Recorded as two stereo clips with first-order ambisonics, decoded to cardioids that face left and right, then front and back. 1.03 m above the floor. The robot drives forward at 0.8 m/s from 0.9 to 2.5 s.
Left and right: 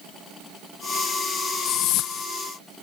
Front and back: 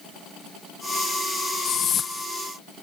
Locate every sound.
1.6 s a whoosh: 50° left; by 2.3 s 75° left